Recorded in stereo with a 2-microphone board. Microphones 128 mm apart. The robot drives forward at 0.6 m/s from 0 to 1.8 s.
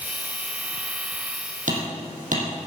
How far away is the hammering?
About 4 m.